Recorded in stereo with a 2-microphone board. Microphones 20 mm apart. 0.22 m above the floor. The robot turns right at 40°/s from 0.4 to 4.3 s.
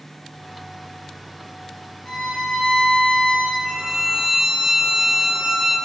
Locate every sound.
2.0 s a violin: 35° left, 2.0 m; by 3.5 s 95° left, 2.0 m
3.6 s a violin: 40° right (ahead or behind), 1.0 m; by 5.8 s 20° right (ahead or behind), 1.0 m